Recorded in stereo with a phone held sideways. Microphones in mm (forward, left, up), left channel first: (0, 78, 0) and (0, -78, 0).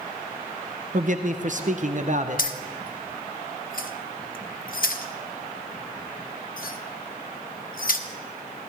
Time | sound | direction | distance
0.9 | a man speaking | 55° right (ahead or behind) | 0.7 m
2.4 | keys jangling | 65° left (ahead or behind) | 0.6 m